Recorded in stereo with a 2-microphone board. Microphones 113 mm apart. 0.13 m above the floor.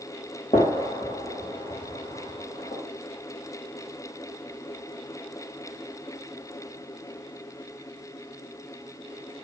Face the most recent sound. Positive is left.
turn(degrees=65)  # may be behind; listen again after turning